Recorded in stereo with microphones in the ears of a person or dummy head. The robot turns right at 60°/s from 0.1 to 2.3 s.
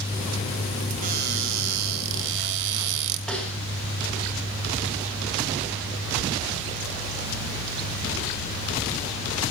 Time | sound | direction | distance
1.0 | a cupboard door | 140° right | 2.5 m
3.3 | a snare drum | 5° left (ahead or behind) | 5.5 m